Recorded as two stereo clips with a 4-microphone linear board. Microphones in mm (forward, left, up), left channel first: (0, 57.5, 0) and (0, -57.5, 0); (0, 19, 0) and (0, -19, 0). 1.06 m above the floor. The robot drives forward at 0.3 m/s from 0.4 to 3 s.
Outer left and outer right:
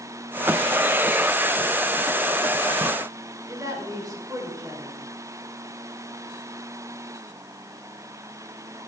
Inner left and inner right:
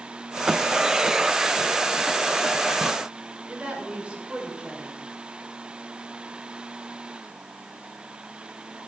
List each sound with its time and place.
3.5 s a woman speaking: 30° right (ahead or behind), 3.5 m